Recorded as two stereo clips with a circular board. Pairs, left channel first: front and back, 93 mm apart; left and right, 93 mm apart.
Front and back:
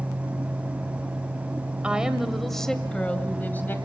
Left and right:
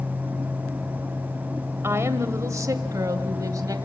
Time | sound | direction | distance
1.8 | a woman speaking | 110° right | 1.7 m